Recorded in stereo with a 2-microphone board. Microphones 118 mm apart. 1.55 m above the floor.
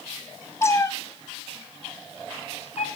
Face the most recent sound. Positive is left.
turn(degrees=60)  # may be behind; listen again after turning